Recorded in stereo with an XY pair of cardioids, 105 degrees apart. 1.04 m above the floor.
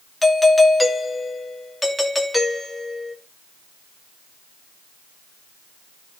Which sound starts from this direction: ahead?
A doorbell, at 0.2 s.